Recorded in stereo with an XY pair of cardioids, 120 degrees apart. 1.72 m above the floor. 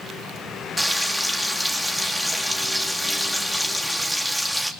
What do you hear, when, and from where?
0.8 s frying: 5° right, 3 m